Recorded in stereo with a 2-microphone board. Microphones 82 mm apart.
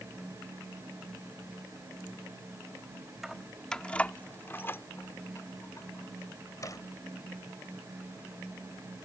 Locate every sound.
3.2 s keys jangling: 5° right (ahead or behind); by 6.8 s 45° left (ahead or behind)